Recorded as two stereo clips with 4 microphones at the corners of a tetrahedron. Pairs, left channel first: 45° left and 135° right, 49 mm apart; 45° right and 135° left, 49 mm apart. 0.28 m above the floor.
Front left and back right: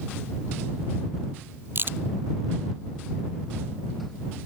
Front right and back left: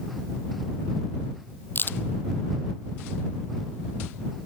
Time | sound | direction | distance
1.8 | a crack | 90° right | ?